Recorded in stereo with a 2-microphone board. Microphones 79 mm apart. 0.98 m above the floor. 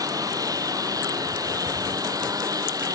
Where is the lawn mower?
50° right (ahead or behind).